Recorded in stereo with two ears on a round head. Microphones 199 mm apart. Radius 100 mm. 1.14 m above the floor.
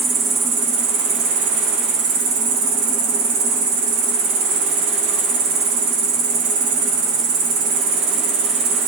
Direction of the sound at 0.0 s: 80° right.